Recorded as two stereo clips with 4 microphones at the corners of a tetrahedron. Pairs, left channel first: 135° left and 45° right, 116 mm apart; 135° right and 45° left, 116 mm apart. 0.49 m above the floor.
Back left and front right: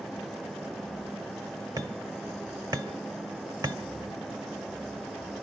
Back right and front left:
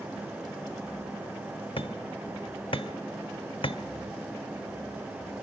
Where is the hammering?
100° right, 1.0 m.